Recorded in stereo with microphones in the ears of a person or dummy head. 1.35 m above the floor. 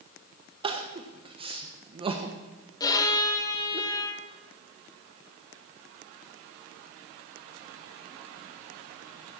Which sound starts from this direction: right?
Crying, at 0.6 s.